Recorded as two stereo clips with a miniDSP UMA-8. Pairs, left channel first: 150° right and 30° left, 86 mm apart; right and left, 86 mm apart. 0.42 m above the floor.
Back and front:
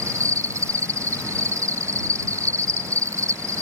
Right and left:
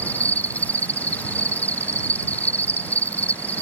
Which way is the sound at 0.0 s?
20° right.